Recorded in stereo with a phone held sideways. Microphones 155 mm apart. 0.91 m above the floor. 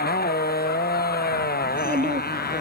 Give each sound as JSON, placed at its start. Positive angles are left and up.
{"t": 0.0, "sound": "a motorcycle", "side_deg": 85}
{"t": 1.6, "sound": "a child speaking", "side_deg": -55}